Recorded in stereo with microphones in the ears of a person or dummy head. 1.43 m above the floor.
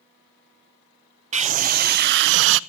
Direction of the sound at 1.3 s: 45° right (ahead or behind).